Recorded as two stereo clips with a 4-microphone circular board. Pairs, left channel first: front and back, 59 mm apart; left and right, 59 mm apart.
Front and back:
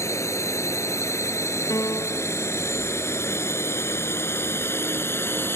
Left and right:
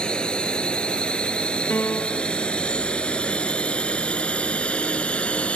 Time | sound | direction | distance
0.0 | a drone | 20° left | ?
1.7 | a piano | 30° left | ?